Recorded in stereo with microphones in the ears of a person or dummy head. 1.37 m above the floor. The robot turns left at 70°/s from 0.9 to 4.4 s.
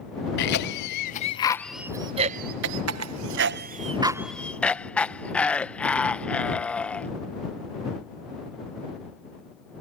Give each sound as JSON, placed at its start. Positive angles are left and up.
{"t": 0.4, "sound": "a cough", "side_deg": 60}